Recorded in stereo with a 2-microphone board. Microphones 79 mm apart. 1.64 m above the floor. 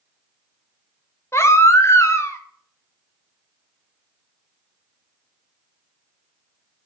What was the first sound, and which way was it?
A baby crying, 35° left (ahead or behind).